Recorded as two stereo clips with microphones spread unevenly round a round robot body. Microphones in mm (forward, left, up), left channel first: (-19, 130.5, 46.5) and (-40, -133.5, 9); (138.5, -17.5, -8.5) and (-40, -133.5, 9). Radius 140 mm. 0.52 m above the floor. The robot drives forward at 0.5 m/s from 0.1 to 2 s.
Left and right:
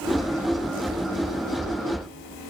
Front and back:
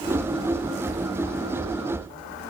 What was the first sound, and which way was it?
Only background noise.